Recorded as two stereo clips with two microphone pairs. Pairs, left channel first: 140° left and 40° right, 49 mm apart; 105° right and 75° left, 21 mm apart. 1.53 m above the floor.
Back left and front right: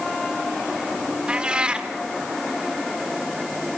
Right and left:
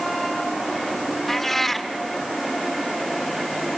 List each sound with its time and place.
1.3 s a cat meowing: 60° right, 1.2 m